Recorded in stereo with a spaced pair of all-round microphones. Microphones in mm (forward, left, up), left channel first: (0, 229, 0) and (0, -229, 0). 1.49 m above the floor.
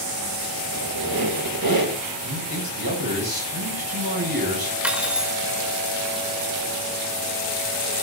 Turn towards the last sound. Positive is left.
turn(degrees=0)  # may be behind; listen again after turning